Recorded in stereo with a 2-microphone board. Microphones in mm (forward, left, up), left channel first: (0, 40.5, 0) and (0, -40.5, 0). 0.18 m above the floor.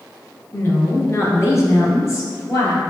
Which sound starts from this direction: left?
A woman speaking, at 0.5 s.